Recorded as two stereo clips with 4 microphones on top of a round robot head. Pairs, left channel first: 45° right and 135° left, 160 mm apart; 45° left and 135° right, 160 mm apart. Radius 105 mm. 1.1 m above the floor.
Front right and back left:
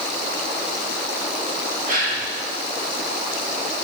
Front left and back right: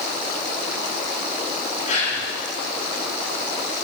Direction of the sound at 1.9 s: 90° left.